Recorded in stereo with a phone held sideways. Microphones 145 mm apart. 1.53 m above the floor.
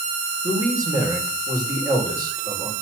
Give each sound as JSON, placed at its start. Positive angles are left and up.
{"t": 0.4, "sound": "a man speaking", "side_deg": -25, "distance_m": 6.0}